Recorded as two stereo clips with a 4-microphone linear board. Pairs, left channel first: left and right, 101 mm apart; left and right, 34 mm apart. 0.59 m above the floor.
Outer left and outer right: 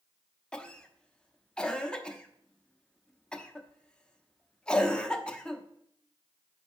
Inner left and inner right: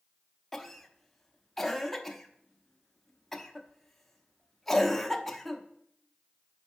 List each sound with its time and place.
0.5 s a cough: 10° left (ahead or behind), 0.7 m